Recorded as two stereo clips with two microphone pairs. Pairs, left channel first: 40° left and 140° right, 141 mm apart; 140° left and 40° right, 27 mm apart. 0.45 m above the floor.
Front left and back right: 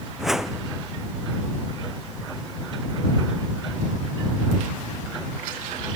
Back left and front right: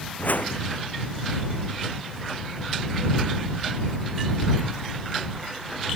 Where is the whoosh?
135° left.